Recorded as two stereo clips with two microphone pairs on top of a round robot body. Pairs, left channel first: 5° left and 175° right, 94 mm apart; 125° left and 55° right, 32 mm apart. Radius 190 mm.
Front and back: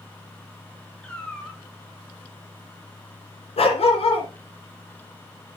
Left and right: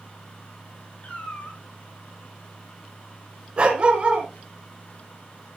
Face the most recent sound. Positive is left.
turn(degrees=0)